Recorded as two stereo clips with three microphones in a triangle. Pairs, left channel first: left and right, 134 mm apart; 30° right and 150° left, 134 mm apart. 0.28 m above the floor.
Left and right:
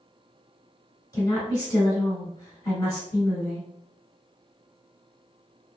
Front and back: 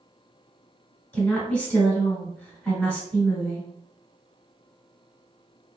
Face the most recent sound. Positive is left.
turn(degrees=45)